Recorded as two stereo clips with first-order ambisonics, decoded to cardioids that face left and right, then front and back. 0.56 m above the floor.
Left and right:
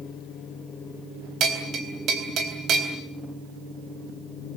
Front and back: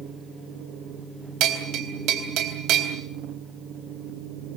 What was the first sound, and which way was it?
A bell, 140° right.